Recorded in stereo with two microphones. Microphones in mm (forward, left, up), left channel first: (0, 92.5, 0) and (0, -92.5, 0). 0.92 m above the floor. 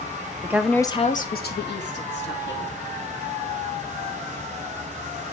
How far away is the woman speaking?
About 0.7 m.